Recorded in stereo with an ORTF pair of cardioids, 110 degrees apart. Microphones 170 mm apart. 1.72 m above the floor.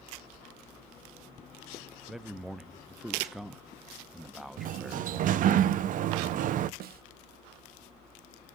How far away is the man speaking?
About 0.7 m.